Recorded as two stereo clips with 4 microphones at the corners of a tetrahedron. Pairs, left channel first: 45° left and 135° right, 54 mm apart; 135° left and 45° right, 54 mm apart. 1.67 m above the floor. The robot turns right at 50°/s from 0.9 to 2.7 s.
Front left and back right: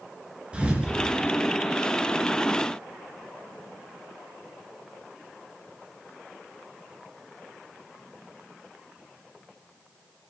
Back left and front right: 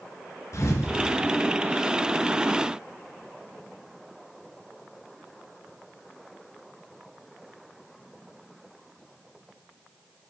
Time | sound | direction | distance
0.5 | a thud | 155° left | 3.5 m